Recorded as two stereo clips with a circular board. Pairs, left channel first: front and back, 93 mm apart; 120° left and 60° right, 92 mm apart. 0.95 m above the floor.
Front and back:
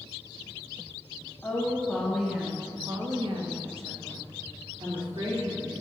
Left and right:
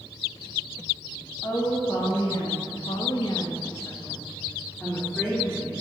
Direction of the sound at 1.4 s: 70° left.